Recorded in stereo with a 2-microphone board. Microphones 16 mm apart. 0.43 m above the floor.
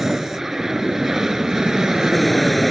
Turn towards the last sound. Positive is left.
turn(degrees=-40)  # may be behind; listen again after turning